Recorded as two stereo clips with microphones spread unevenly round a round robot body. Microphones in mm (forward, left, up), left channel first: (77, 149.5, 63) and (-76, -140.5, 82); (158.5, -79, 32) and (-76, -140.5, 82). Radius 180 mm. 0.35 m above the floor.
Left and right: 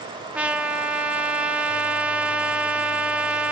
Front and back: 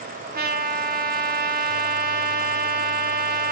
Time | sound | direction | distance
0.3 | a trumpet | 155° left | 1.0 m